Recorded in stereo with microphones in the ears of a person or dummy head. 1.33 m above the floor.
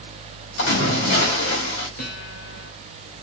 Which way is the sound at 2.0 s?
70° left (ahead or behind).